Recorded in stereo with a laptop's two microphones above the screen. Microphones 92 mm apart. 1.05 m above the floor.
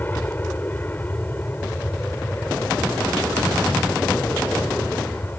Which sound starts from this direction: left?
An aircraft, at 0.0 s.